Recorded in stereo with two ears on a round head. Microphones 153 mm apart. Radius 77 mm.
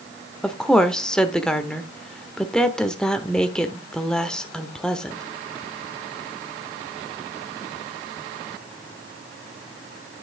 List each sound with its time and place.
0.4 s a woman speaking: 5° left (ahead or behind), 1.0 m